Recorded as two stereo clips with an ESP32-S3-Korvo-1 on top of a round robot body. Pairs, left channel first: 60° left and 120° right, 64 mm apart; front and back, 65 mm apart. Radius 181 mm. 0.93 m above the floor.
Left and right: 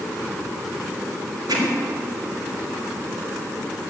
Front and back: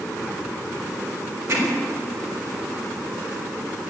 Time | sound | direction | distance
1.5 | hammering | 135° right | 3.5 m